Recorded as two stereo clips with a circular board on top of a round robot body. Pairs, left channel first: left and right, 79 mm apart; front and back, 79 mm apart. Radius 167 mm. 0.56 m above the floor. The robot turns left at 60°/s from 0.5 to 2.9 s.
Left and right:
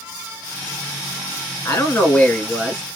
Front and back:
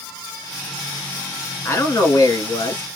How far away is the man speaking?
About 1.5 m.